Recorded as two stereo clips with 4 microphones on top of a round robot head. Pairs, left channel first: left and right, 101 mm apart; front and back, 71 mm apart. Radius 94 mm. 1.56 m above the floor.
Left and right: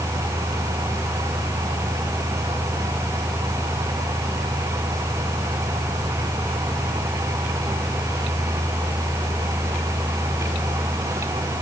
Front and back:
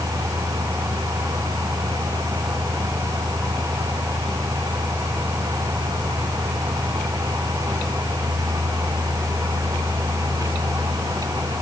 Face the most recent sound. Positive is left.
No sound to turn to.